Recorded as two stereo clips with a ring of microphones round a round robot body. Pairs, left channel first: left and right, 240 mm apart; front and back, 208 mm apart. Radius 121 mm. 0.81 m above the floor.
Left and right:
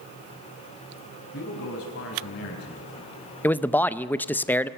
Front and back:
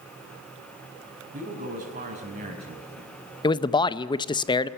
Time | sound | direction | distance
1.3 | a man speaking | 135° left | 5 m
3.4 | a man speaking | 20° left | 0.5 m